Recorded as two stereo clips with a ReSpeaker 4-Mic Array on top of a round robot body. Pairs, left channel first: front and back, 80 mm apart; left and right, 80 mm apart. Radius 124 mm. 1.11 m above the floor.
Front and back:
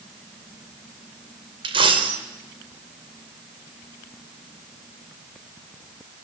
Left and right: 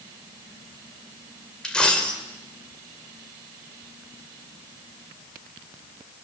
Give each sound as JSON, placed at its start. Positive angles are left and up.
{"t": 1.6, "sound": "a dropped coin", "azimuth_deg": 170, "distance_m": 2.0}